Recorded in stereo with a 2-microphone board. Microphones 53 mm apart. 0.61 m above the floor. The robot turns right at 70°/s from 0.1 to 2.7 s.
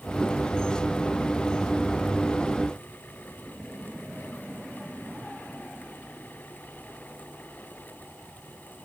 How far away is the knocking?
I don't hear knocking.